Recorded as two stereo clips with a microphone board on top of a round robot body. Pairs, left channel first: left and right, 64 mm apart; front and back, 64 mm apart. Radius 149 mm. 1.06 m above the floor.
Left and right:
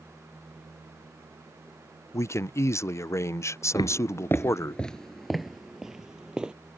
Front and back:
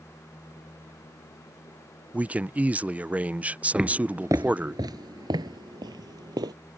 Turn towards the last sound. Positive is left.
turn(degrees=-170)